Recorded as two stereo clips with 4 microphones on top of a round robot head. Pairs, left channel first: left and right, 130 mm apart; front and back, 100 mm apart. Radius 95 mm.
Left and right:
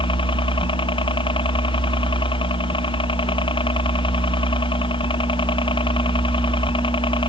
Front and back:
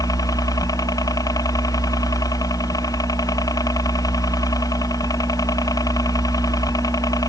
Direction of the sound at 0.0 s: 50° left.